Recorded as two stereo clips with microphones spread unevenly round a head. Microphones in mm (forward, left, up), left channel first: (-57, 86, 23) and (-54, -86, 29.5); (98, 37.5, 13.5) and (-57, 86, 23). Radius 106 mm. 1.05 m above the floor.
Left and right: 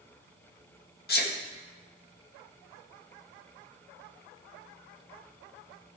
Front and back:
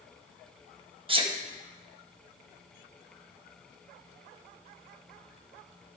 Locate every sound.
1.1 s a sneeze: 105° left, 1.7 m